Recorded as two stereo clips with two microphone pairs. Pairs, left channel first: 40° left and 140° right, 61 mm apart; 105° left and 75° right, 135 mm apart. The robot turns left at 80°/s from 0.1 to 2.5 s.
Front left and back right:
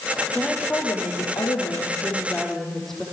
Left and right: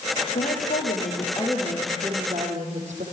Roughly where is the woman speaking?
Behind left.